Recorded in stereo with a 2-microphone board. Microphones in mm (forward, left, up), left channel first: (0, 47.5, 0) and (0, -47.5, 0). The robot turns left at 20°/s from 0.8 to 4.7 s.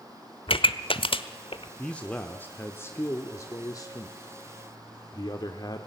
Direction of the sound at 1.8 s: 165° left.